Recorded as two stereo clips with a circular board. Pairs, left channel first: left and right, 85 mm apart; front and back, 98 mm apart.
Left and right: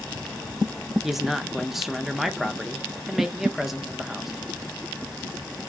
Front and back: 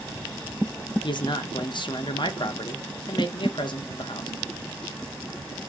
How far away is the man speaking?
About 0.6 m.